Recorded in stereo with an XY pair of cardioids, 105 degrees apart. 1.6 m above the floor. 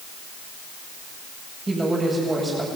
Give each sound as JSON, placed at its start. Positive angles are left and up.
{"t": 1.7, "sound": "a woman speaking", "azimuth_deg": -25, "distance_m": 8.5}